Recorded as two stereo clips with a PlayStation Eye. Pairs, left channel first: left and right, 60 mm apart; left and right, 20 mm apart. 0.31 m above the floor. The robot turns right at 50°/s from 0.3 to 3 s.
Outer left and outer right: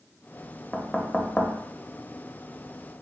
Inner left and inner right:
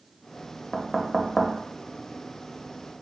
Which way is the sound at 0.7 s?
10° left (ahead or behind).